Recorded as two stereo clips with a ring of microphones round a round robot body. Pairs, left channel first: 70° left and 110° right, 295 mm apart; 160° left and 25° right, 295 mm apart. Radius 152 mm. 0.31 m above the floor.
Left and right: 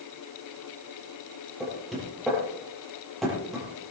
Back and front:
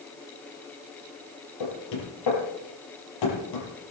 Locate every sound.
1.6 s knocking: 155° left, 6 m